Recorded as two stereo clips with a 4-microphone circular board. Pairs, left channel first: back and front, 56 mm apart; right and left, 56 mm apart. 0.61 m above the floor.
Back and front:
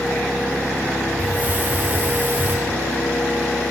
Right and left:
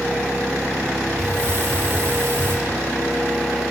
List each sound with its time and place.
1.2 s a hiss: 55° left, 2.5 m